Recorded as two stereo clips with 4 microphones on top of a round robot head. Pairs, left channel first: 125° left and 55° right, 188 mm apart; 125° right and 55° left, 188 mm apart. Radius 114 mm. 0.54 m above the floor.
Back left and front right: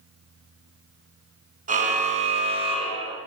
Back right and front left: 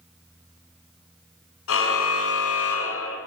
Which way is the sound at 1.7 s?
110° right.